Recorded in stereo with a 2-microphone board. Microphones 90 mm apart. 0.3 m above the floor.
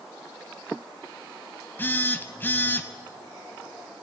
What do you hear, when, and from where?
1.8 s a phone buzzing: 25° left (ahead or behind), 0.8 m